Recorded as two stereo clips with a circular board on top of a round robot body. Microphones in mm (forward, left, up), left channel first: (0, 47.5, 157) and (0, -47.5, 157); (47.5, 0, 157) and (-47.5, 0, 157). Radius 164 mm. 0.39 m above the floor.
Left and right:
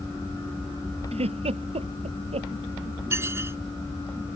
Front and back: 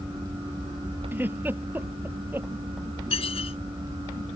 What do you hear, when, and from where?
1.1 s a giggle: 110° right
3.1 s dishes clattering: 25° right